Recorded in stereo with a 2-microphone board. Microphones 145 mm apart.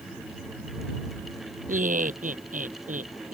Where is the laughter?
65° right (ahead or behind); by 3.4 s 60° right (ahead or behind).